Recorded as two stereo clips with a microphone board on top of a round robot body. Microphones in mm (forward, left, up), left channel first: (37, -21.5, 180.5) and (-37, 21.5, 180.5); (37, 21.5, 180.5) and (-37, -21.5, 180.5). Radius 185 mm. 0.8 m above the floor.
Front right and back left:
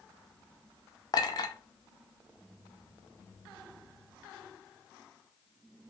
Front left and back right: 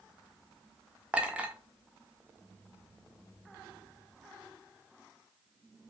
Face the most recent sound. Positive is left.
turn(degrees=-75)